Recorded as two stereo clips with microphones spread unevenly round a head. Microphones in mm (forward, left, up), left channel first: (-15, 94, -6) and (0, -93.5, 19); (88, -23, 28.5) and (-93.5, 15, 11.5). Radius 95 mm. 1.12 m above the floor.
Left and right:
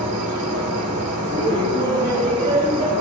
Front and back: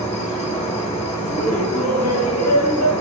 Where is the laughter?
15° right, 2.5 m.